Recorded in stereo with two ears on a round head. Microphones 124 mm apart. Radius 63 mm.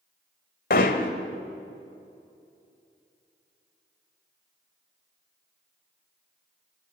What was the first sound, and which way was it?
Hammering, 70° left (ahead or behind).